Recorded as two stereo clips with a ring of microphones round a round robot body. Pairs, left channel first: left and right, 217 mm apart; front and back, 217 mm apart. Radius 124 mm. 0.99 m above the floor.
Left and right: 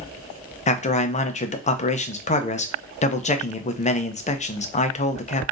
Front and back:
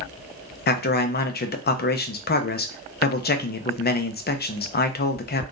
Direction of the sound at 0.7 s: 35° left.